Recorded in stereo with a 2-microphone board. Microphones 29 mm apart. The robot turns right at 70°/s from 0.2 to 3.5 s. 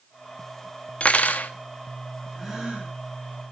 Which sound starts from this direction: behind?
A gasp, at 2.4 s.